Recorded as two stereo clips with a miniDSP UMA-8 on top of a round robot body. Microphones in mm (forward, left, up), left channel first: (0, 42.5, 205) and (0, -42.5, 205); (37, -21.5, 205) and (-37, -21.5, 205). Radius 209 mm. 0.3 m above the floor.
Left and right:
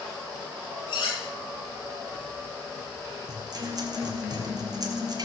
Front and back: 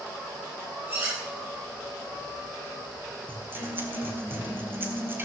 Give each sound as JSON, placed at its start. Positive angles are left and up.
{"t": 0.9, "sound": "cutlery clinking", "azimuth_deg": 125, "distance_m": 6.5}
{"t": 3.3, "sound": "a guitar", "azimuth_deg": -125, "distance_m": 2.5}